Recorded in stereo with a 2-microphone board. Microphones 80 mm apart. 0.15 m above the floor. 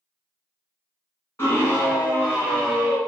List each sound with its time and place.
1.4 s a scream: 30° left (ahead or behind), 1.9 m; by 3.0 s 5° left (ahead or behind), 1.9 m